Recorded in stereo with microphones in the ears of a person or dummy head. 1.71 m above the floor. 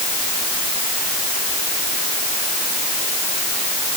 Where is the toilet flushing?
I don't hear a toilet flushing.